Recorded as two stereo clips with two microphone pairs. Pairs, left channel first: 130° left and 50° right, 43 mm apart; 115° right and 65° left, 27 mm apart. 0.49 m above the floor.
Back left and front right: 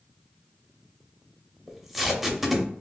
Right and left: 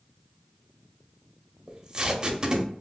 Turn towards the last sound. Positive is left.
turn(degrees=35)